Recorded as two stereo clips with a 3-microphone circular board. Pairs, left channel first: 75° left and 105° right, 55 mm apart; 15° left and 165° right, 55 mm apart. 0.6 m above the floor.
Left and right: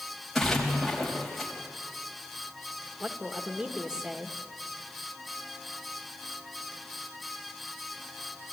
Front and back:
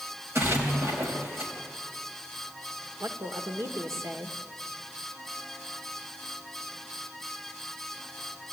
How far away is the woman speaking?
About 1.4 m.